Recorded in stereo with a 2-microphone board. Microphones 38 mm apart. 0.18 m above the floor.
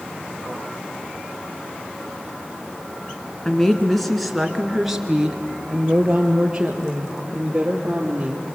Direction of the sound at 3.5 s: 15° left (ahead or behind).